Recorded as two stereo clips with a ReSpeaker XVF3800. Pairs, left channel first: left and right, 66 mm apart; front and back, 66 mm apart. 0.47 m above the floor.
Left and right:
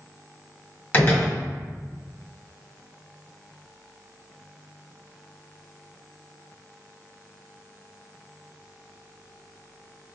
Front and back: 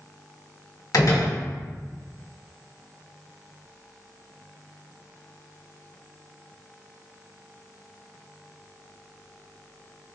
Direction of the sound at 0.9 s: 25° left.